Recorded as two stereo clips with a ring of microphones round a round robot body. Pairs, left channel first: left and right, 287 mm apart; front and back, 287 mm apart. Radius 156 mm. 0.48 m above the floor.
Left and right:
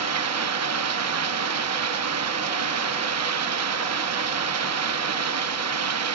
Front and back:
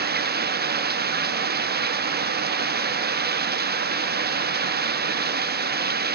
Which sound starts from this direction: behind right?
Running water, at 0.0 s.